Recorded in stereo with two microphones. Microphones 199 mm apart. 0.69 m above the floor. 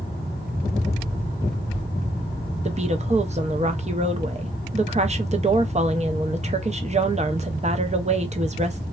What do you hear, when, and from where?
2.6 s a woman speaking: 35° right (ahead or behind), 0.5 m